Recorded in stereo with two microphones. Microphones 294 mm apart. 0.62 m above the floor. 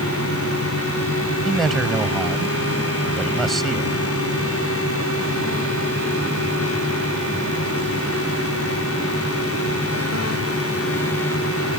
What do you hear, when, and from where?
1.4 s a man speaking: centre (ahead or behind)